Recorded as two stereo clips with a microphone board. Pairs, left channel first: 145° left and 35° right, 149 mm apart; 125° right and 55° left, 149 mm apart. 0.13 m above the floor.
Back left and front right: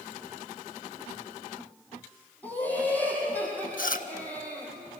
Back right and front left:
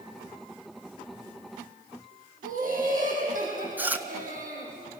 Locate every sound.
2.4 s laughter: 70° left, 4 m
3.8 s chewing: 135° left, 0.9 m